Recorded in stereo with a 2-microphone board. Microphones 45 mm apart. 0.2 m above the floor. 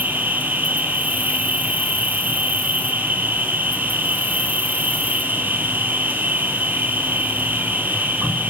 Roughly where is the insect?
Right.